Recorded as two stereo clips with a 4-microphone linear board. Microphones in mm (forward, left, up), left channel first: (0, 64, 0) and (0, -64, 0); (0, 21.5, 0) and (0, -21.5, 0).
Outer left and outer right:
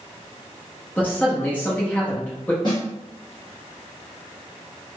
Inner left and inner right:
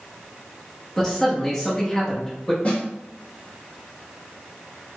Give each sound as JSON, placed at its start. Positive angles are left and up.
{"t": 1.0, "sound": "a man speaking", "side_deg": 15, "distance_m": 0.8}
{"t": 2.6, "sound": "a snare drum", "side_deg": 40, "distance_m": 1.4}